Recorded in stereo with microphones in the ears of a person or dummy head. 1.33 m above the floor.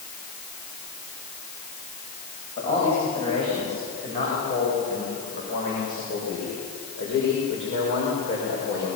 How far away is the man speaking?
About 7.5 m.